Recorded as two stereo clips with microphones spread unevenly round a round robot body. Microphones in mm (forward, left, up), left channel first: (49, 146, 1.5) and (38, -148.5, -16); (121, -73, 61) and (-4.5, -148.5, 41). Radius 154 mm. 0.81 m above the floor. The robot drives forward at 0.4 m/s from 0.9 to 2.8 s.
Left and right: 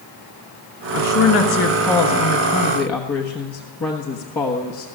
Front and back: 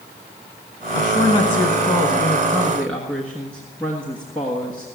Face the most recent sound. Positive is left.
turn(degrees=140)